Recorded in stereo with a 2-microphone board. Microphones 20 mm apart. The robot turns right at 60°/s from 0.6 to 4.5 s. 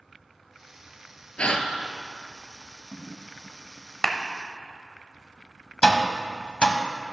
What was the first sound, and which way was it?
A gasp, 70° left (ahead or behind).